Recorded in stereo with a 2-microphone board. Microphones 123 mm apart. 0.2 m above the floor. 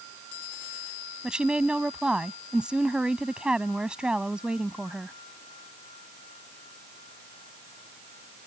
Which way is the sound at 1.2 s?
10° right (ahead or behind).